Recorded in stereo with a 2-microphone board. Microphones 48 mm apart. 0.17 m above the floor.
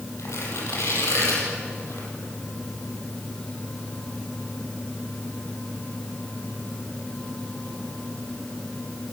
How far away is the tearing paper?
About 7 m.